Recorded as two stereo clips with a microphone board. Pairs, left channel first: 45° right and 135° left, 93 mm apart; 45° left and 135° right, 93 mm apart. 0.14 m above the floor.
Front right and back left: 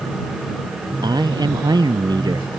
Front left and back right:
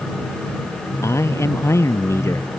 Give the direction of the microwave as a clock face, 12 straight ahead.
No microwave in this recording.